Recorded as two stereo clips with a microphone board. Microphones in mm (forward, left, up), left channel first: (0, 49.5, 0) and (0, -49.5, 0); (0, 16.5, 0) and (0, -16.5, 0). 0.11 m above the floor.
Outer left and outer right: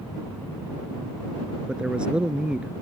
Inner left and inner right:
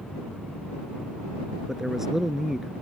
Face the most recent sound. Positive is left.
turn(degrees=-10)  # may be behind; listen again after turning